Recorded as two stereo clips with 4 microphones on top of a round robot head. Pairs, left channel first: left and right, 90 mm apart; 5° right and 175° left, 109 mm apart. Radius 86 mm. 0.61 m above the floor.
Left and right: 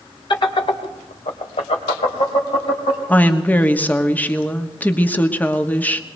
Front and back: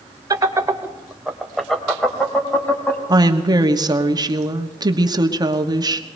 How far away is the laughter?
About 2 m.